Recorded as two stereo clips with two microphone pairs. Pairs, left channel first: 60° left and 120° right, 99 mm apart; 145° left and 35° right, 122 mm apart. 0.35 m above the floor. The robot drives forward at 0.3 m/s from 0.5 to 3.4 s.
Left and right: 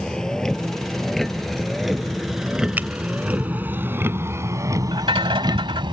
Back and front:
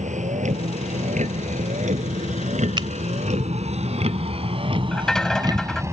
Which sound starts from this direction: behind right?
A rattle, at 4.9 s.